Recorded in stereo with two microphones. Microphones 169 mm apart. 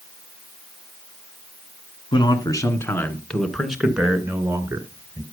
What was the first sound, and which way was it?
A man speaking, 25° left (ahead or behind).